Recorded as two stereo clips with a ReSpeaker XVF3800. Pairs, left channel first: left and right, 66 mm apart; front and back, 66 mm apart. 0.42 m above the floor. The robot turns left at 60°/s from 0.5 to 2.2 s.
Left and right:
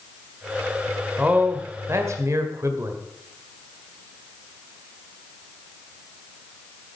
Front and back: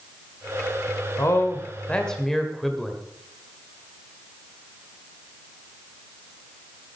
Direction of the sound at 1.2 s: 25° right.